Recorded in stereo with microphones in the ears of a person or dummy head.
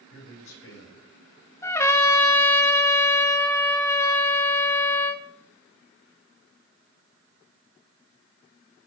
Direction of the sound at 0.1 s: 80° left.